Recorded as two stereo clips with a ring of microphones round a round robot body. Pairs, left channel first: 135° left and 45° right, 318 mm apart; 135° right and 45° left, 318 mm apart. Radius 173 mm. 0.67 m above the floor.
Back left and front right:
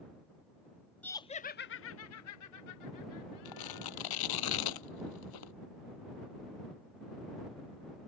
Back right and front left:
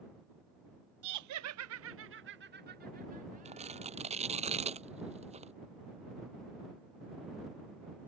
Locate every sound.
1.0 s laughter: 50° left; by 4.2 s 115° left
3.5 s tearing paper: 115° left